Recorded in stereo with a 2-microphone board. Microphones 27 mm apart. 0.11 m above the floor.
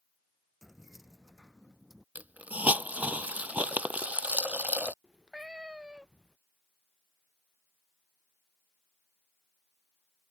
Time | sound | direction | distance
0.6 | keys jangling | 5° right (ahead or behind) | ?
2.1 | a hiss | 75° right (ahead or behind) | ?
5.0 | a cat meowing | 25° right (ahead or behind) | ?